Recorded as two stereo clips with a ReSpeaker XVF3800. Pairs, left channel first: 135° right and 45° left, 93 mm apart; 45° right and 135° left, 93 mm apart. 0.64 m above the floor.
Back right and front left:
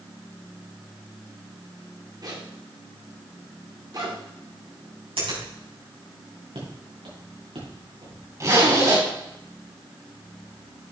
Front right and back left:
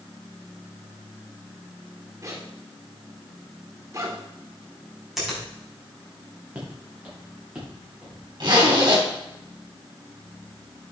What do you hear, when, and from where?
2.2 s a zipper: 85° left, 1.9 m
5.2 s a finger snap: 45° left, 5 m
6.5 s footsteps: 60° left, 4 m; by 8.2 s 55° left, 5 m
8.4 s a zipper: 95° left, 3.5 m